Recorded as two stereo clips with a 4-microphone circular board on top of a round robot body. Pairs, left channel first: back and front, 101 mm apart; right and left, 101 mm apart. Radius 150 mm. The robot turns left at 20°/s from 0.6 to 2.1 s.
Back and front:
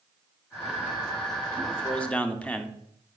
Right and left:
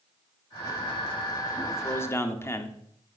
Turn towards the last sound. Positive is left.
turn(degrees=-115)